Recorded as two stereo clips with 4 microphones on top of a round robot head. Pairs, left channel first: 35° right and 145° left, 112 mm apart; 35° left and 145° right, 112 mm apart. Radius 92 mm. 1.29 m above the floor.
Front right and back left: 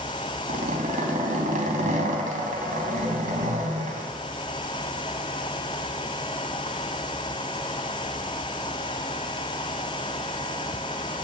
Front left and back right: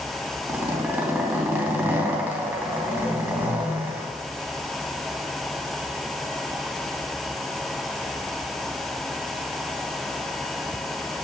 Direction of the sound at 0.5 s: 145° left.